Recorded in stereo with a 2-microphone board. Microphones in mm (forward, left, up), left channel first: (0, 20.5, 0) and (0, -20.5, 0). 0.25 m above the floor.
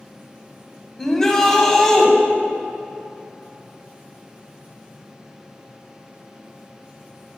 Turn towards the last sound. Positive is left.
turn(degrees=10)  # may be behind; listen again after turning